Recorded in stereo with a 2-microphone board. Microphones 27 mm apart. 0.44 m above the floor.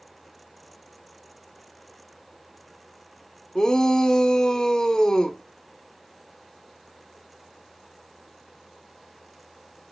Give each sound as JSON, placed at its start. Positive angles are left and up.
{"t": 3.5, "sound": "a shout", "side_deg": 30, "distance_m": 0.8}